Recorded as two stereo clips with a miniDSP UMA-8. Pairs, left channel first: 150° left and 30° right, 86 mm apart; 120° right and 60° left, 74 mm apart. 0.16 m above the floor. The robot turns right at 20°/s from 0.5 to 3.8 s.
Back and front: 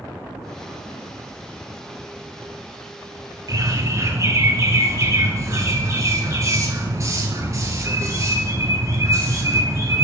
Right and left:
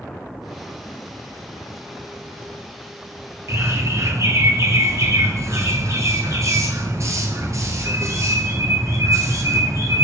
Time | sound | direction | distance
3.5 | a bird | 10° left | 1.2 m